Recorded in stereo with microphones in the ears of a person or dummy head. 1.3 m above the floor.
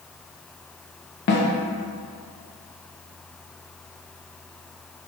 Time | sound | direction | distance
1.3 | a snare drum | 55° left (ahead or behind) | 0.7 m